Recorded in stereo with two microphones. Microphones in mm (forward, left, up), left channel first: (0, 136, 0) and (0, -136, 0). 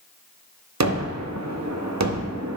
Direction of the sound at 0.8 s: 80° right.